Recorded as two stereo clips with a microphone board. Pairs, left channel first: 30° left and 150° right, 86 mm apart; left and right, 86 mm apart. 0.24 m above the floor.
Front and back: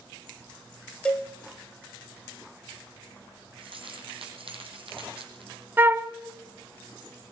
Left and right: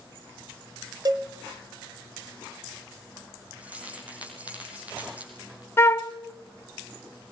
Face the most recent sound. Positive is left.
turn(degrees=145)